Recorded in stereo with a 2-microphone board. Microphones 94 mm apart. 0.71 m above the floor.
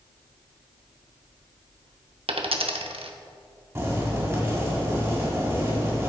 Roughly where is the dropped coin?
Right.